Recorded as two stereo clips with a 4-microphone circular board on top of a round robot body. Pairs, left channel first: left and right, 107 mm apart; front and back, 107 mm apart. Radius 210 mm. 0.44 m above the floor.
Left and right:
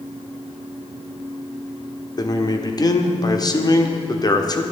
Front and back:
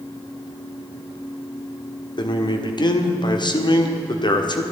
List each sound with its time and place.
2.2 s a man speaking: 40° left, 1.5 m